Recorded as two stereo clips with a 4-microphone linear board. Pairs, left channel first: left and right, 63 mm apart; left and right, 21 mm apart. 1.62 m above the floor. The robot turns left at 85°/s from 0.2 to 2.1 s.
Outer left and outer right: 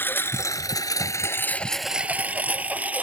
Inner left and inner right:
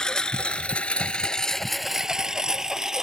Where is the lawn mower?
35° left (ahead or behind); by 3.0 s 25° right (ahead or behind).